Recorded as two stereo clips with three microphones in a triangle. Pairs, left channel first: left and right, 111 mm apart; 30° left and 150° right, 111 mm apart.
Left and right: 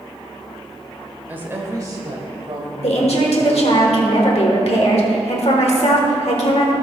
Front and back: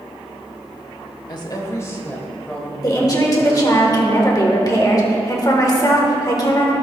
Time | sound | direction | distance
1.3 | a woman speaking | 15° right | 1.3 m
2.8 | a woman speaking | 80° left | 1.3 m